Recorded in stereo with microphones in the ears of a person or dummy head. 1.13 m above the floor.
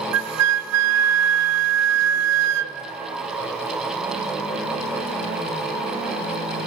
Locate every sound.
0.1 s a flute: 70° right (ahead or behind), 0.9 m